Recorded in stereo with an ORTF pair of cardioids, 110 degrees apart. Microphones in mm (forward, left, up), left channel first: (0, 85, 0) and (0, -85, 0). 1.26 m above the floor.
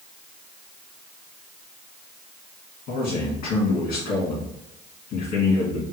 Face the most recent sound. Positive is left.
turn(degrees=70)